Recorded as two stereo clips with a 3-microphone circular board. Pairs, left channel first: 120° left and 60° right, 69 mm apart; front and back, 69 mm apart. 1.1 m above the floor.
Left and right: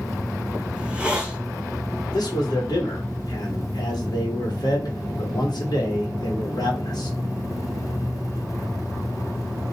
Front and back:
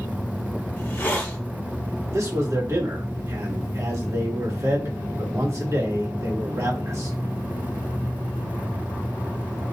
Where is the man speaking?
135° left, 1.3 m.